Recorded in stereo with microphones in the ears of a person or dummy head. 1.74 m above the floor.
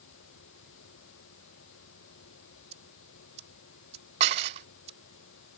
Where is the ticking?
40° right (ahead or behind).